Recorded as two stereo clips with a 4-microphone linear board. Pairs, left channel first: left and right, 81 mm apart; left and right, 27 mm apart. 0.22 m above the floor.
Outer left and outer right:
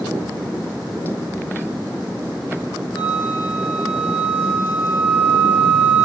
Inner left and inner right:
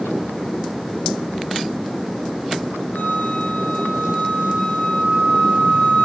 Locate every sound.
2.9 s a flute: 55° left (ahead or behind), 6.5 m